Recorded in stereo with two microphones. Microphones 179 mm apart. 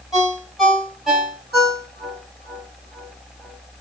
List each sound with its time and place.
0.1 s a ringtone: centre (ahead or behind), 2 m